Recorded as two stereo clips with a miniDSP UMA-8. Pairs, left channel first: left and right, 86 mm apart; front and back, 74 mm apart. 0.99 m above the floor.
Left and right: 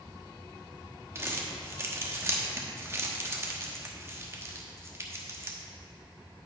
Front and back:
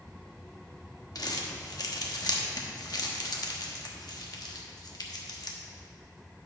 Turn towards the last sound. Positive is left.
turn(degrees=-30)